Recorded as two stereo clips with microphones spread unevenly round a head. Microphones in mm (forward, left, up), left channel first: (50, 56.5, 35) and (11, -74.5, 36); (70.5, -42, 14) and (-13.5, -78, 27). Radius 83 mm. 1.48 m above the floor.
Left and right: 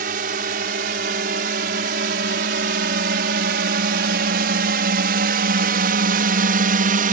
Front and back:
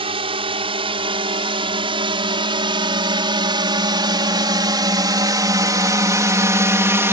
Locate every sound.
0.0 s a drone: 140° right; by 7.1 s 95° right